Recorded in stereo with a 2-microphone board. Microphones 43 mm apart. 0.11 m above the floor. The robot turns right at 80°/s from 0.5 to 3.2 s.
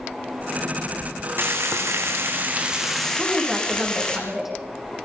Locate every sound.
1.4 s frying: 125° right, 3 m; by 4.2 s 20° left, 3 m
3.2 s a woman speaking: 5° right (ahead or behind), 6 m